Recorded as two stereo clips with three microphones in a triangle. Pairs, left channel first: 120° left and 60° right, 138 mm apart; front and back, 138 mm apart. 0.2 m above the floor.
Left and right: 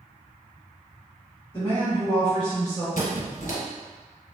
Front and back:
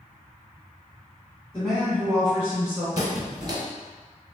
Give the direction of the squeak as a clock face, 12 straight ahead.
8 o'clock.